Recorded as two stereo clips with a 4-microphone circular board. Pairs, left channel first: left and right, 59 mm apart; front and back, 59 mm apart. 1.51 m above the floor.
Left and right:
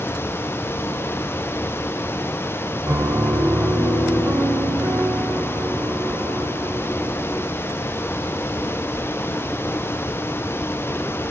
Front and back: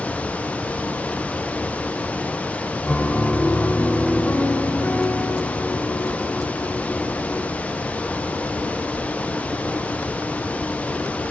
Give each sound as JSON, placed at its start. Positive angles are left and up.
{"t": 2.9, "sound": "a piano", "azimuth_deg": -55, "distance_m": 6.5}